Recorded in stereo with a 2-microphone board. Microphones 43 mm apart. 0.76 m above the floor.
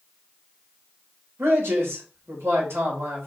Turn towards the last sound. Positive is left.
turn(degrees=-80)